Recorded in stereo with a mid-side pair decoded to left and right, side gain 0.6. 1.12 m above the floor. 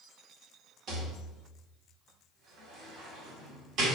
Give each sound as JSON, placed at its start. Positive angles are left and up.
{"t": 0.9, "sound": "a rattle", "azimuth_deg": -60, "distance_m": 2.0}